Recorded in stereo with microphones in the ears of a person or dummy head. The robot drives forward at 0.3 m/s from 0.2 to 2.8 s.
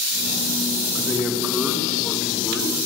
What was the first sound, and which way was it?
A man speaking, 10° right (ahead or behind).